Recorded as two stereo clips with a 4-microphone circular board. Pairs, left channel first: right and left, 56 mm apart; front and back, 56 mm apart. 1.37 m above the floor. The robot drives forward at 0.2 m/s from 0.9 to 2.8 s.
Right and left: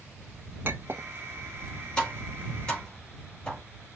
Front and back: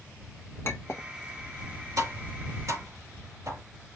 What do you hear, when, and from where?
0.7 s a clink: 40° left, 1.4 m; by 1.1 s 45° left, 1.4 m
2.0 s tapping: 160° right, 4 m; by 3.6 s 165° right, 4 m